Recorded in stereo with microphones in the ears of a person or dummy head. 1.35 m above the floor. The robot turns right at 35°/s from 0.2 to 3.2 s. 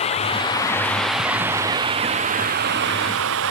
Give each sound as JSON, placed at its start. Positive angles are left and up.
{"t": 0.0, "sound": "running water", "azimuth_deg": 150}